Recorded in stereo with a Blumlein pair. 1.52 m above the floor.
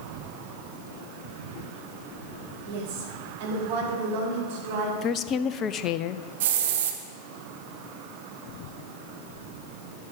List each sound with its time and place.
2.6 s a woman speaking: 45° right, 3.5 m; by 4.9 s 50° right, 5 m
5.0 s a woman speaking: 30° left, 0.5 m
6.4 s a hiss: 55° right, 1.3 m